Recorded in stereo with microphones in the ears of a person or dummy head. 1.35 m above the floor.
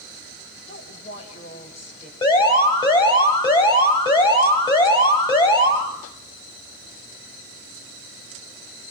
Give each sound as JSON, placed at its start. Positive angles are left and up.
{"t": 0.7, "sound": "a woman speaking", "side_deg": 30, "distance_m": 6.5}
{"t": 2.2, "sound": "an alarm", "side_deg": 20, "distance_m": 6.5}